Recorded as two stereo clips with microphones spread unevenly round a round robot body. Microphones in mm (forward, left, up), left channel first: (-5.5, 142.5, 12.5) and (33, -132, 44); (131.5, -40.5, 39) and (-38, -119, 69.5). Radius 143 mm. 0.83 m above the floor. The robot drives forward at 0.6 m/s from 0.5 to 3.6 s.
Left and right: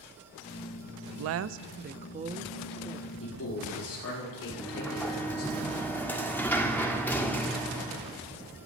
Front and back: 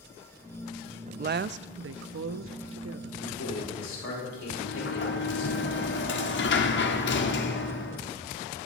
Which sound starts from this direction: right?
A woman speaking, at 1.1 s.